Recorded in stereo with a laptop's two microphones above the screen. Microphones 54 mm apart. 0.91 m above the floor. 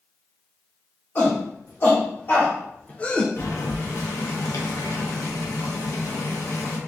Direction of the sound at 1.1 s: 45° left (ahead or behind).